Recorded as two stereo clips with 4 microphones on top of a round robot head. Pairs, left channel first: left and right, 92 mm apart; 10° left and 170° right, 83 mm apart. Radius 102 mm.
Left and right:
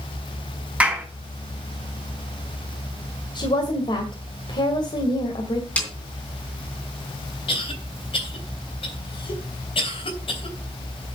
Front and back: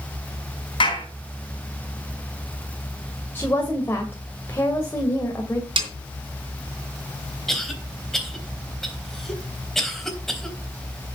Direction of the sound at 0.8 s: 15° right.